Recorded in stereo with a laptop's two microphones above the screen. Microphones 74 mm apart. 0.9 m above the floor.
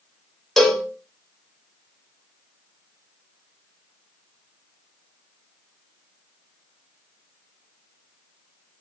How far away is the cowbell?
About 1.3 m.